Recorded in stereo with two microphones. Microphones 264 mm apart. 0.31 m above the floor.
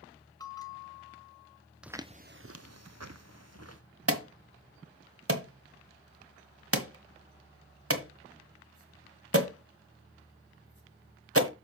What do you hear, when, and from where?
0.4 s a bell: 15° left (ahead or behind), 1.4 m
1.8 s footsteps: 5° right (ahead or behind), 0.7 m; by 3.8 s 65° right (ahead or behind), 1.6 m
4.1 s an alarm: 60° right (ahead or behind), 1.5 m